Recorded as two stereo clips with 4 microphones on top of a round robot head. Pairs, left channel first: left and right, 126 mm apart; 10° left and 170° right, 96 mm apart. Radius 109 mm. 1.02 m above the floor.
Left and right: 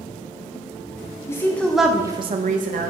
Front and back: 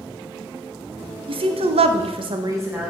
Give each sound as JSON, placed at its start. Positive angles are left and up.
{"t": 1.3, "sound": "a woman speaking", "azimuth_deg": 165, "distance_m": 1.3}